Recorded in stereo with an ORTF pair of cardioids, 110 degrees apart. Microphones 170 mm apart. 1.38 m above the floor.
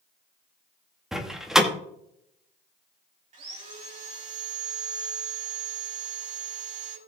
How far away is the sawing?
About 5 m.